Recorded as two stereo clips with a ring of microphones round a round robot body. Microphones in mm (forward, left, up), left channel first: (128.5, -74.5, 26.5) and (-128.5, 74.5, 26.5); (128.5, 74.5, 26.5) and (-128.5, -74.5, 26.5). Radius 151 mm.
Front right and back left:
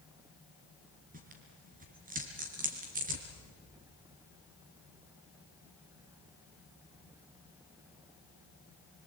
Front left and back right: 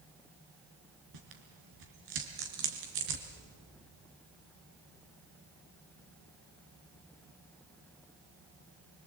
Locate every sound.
1.1 s tearing paper: 145° right, 3.5 m